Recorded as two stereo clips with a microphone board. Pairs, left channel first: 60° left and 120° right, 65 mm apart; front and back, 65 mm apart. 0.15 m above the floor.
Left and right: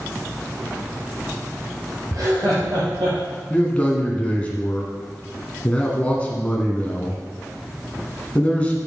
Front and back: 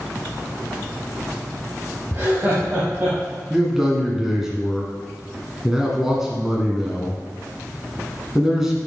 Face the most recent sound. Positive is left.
turn(degrees=105)